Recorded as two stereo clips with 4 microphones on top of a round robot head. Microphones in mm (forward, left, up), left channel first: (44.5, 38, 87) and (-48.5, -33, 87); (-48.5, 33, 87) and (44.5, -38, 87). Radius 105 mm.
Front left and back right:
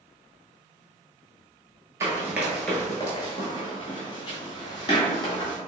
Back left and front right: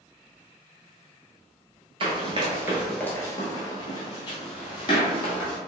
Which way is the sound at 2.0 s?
80° right.